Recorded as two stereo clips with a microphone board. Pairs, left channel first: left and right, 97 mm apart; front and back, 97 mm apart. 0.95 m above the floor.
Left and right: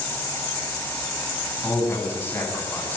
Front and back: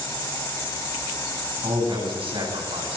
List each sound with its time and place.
1.6 s a man speaking: 160° left, 9.5 m